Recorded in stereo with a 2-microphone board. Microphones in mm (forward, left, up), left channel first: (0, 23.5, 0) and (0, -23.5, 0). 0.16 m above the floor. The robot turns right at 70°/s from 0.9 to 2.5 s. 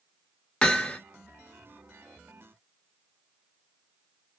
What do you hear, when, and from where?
0.6 s hammering: 25° left (ahead or behind), 0.6 m; by 1.0 s 30° left (ahead or behind), 0.6 m